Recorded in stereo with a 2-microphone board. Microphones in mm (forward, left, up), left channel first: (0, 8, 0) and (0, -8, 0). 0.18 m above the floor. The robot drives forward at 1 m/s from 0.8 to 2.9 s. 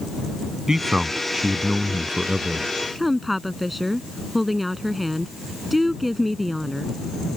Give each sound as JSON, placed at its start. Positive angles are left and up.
{"t": 0.7, "sound": "a man speaking", "side_deg": -35}
{"t": 3.0, "sound": "a woman speaking", "side_deg": -5}